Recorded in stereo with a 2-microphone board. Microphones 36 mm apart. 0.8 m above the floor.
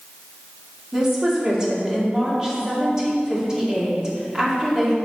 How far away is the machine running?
No machine running in this recording.